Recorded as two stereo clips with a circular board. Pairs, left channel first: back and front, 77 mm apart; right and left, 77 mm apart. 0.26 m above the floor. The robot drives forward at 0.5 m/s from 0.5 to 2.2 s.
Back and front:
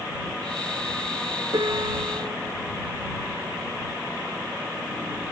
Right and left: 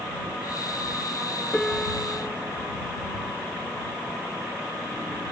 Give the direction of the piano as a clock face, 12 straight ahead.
12 o'clock.